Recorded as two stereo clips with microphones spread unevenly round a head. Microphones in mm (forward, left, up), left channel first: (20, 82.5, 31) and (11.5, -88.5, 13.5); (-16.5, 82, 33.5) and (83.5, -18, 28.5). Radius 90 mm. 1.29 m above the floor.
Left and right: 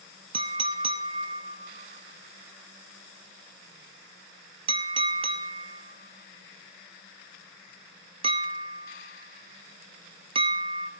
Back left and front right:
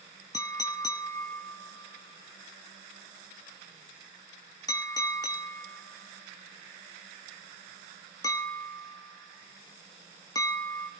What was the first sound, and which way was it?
A clink, 155° right.